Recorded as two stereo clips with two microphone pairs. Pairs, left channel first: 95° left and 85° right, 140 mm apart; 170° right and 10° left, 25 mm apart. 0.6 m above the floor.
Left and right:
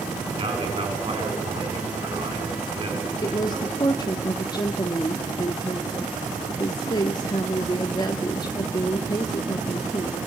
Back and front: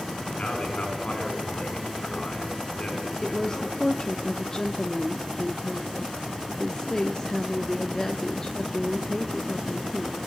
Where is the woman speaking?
135° left, 1.0 m.